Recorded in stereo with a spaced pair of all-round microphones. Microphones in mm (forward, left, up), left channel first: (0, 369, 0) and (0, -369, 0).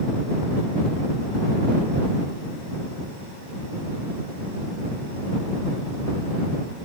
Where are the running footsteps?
I don't hear running footsteps.